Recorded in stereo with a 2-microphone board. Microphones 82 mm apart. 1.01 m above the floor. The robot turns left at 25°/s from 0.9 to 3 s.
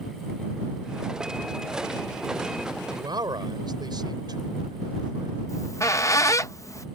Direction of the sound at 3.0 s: 60° right (ahead or behind).